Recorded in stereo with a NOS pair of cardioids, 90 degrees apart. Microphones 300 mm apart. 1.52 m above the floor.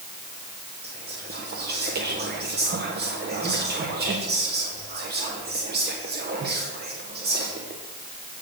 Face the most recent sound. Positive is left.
turn(degrees=-35)